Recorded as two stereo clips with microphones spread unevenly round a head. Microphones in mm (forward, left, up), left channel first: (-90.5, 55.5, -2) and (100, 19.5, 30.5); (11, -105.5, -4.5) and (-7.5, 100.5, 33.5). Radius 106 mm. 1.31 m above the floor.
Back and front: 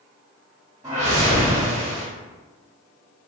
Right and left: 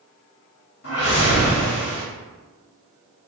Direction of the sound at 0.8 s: 85° right.